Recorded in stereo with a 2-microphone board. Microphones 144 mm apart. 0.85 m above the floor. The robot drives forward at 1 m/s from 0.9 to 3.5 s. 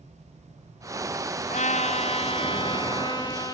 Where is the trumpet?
55° left (ahead or behind), 1.7 m; by 3.5 s 25° left (ahead or behind), 3 m.